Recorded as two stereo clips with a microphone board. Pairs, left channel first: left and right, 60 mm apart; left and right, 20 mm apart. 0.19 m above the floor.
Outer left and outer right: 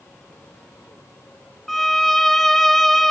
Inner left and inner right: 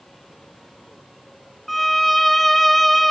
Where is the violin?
5° left (ahead or behind), 0.7 m.